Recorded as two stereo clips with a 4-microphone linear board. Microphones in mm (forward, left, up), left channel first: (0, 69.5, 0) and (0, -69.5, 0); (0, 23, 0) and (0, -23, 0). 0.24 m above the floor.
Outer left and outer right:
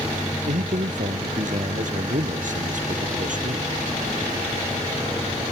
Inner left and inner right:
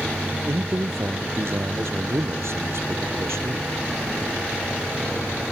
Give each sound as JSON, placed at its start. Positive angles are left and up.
{"t": 0.5, "sound": "a man speaking", "side_deg": -70}